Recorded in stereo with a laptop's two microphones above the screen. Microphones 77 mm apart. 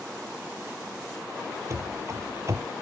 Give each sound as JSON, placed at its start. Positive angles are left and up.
{"t": 1.7, "sound": "running footsteps", "side_deg": -40}